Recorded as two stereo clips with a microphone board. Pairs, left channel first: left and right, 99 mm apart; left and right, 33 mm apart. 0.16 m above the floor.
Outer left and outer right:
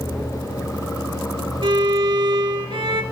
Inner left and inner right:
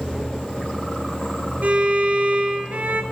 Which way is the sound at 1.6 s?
60° right (ahead or behind).